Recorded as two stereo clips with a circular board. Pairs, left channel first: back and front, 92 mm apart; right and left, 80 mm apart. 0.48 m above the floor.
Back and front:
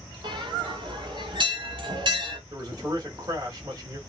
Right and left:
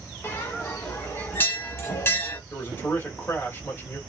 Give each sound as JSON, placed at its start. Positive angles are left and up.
{"t": 0.2, "sound": "a bell", "azimuth_deg": -30, "distance_m": 1.1}
{"t": 2.5, "sound": "a man speaking", "azimuth_deg": -35, "distance_m": 1.4}